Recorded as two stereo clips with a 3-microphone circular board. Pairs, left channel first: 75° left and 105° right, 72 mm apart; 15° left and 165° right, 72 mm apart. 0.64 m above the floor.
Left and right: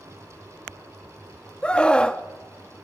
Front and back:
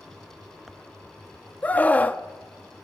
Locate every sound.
1.6 s a scream: 25° left, 0.8 m